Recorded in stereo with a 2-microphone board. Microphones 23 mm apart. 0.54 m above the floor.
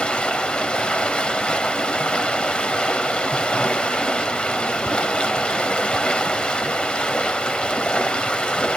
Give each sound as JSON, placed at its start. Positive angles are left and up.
{"t": 0.0, "sound": "running water", "side_deg": 55, "distance_m": 1.7}